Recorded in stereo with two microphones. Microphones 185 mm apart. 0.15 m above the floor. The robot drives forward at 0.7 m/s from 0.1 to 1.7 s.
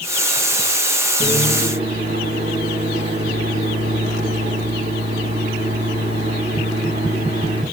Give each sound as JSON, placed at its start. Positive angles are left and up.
{"t": 1.2, "sound": "a microwave", "side_deg": -35, "distance_m": 9.0}